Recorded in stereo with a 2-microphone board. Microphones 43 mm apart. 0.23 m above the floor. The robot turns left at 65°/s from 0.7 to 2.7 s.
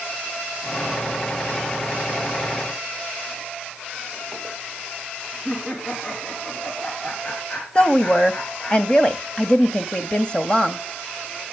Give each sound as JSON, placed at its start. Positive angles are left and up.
{"t": 5.5, "sound": "laughter", "side_deg": 35, "distance_m": 3.0}
{"t": 7.8, "sound": "a woman speaking", "side_deg": 20, "distance_m": 1.0}